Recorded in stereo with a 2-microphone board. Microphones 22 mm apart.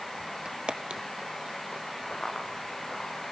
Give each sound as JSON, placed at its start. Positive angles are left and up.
{"t": 0.5, "sound": "footsteps", "side_deg": -40, "distance_m": 1.2}
{"t": 2.1, "sound": "running footsteps", "side_deg": 45, "distance_m": 9.5}